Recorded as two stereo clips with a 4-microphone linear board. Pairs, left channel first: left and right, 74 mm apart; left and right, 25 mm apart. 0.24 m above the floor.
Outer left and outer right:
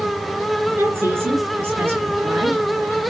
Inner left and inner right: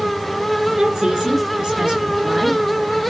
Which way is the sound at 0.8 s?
30° right (ahead or behind).